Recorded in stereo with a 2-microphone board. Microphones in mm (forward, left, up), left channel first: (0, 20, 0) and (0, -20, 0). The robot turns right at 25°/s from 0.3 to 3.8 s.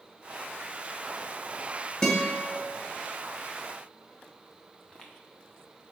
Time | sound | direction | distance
2.0 | a guitar | 15° left (ahead or behind) | 1.6 m
4.8 | footsteps | 25° left (ahead or behind) | 1.3 m